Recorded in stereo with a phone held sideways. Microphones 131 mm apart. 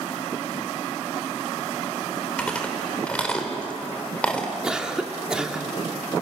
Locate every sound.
2.4 s chewing: 10° left (ahead or behind), 3 m
4.6 s a cough: 5° right (ahead or behind), 2 m